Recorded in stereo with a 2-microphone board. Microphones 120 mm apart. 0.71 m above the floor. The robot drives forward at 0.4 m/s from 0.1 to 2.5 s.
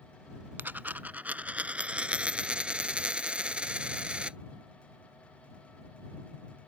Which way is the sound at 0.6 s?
15° right (ahead or behind).